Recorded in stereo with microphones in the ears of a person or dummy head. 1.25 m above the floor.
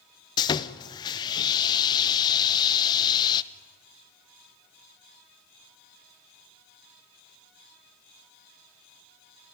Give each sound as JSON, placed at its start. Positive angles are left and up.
{"t": 0.4, "sound": "sawing", "side_deg": 25, "distance_m": 0.7}